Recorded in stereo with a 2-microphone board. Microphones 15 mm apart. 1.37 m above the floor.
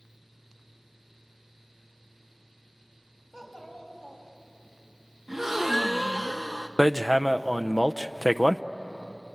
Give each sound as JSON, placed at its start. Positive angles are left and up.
{"t": 3.3, "sound": "a child speaking", "side_deg": 10, "distance_m": 6.5}
{"t": 5.3, "sound": "a gasp", "side_deg": -10, "distance_m": 1.2}
{"t": 6.8, "sound": "hammering", "side_deg": -5, "distance_m": 0.5}